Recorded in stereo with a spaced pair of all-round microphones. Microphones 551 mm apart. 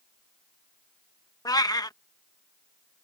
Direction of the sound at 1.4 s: 5° left (ahead or behind).